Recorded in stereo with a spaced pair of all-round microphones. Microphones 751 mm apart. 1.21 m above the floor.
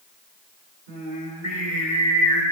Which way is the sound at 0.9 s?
65° right (ahead or behind).